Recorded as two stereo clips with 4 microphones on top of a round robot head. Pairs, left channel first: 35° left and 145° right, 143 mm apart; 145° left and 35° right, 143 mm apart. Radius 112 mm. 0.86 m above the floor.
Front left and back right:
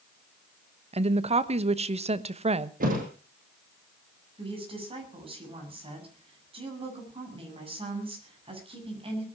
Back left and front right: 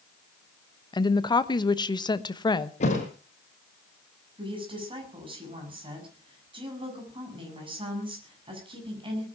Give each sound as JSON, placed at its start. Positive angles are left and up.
{"t": 0.9, "sound": "a woman speaking", "azimuth_deg": -165, "distance_m": 1.2}
{"t": 2.8, "sound": "a thud", "azimuth_deg": -170, "distance_m": 4.5}
{"t": 4.4, "sound": "a woman speaking", "azimuth_deg": -90, "distance_m": 7.5}